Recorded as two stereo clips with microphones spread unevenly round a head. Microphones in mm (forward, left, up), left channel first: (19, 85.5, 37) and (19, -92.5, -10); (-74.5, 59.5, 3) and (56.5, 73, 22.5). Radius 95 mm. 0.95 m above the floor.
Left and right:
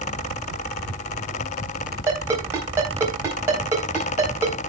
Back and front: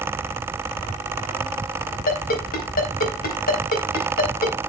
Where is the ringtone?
170° right, 4 m.